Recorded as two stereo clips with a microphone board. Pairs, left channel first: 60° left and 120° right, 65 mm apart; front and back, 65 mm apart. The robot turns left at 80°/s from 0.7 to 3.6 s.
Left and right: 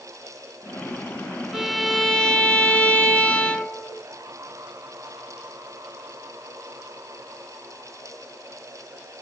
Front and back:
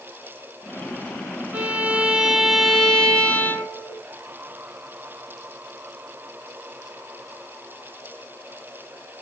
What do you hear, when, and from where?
1.5 s a violin: 170° left, 0.9 m; by 4.0 s straight ahead, 0.9 m